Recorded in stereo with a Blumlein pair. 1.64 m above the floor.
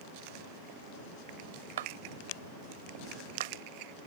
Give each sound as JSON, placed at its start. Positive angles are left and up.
{"t": 1.8, "sound": "a clap", "azimuth_deg": -60}